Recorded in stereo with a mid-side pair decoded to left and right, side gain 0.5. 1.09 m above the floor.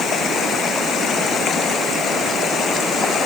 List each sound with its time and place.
Only background noise.